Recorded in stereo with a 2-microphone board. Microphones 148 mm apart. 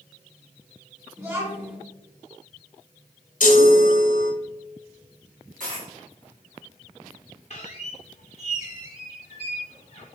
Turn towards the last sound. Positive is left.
turn(degrees=50)  # may be behind; listen again after turning